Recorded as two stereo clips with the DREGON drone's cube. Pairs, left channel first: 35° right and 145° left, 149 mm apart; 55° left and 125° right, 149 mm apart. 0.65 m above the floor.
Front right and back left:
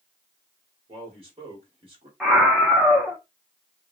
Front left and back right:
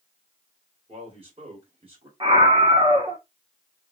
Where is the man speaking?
170° right, 2 m.